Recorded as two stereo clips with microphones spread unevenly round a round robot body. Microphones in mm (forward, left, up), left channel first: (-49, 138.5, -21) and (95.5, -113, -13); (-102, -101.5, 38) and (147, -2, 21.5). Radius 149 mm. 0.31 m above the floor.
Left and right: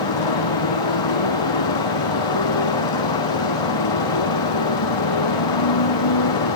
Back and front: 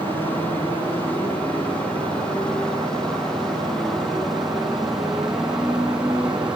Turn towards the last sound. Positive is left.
turn(degrees=110)